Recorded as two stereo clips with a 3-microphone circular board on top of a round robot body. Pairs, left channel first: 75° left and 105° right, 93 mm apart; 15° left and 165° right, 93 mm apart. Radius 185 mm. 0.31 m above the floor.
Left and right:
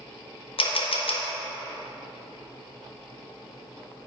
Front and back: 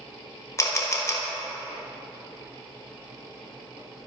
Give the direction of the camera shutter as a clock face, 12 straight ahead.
10 o'clock.